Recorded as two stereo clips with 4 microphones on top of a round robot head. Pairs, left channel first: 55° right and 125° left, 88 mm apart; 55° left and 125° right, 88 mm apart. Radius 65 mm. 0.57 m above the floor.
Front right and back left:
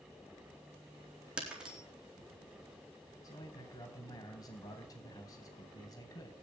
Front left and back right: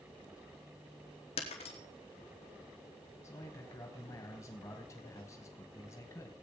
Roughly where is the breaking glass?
Ahead left.